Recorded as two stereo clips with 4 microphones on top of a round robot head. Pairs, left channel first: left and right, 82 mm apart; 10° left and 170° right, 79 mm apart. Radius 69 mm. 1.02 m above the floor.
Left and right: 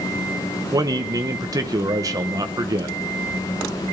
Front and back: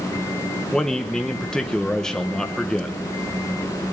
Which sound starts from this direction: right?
A man speaking, at 0.7 s.